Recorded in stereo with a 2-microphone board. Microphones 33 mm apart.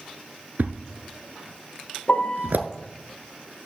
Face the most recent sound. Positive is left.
turn(degrees=45)  # may be behind; listen again after turning